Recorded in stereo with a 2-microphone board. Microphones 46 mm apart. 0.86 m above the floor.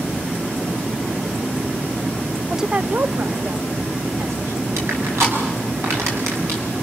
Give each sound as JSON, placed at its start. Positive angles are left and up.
{"t": 2.5, "sound": "a woman speaking", "side_deg": -5, "distance_m": 0.6}
{"t": 4.8, "sound": "crushing", "side_deg": -80, "distance_m": 7.5}